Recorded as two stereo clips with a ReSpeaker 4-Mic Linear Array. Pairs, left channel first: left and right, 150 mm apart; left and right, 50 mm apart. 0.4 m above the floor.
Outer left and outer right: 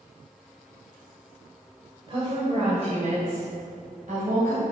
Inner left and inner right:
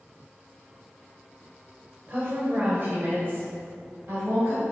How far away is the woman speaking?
About 1.9 m.